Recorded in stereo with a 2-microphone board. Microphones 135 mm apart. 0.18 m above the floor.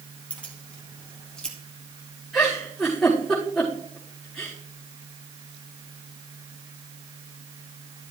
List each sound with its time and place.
0.3 s keys jangling: 10° left (ahead or behind), 3.5 m; by 1.6 s 5° left (ahead or behind), 3 m
2.3 s a giggle: 5° left (ahead or behind), 5 m